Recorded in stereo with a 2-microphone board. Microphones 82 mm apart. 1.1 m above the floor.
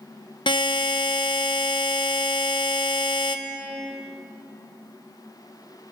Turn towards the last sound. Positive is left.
turn(degrees=70)  # may be behind; listen again after turning